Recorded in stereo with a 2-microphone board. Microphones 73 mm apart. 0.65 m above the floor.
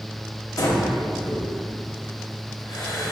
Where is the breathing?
60° left (ahead or behind), 0.6 m.